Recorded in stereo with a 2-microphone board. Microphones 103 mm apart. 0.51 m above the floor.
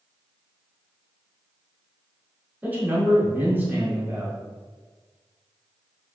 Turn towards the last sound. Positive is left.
turn(degrees=-15)  # may be behind; listen again after turning